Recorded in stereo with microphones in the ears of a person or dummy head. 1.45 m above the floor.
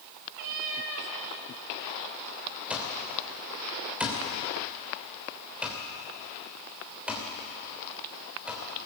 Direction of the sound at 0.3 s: 45° right (ahead or behind).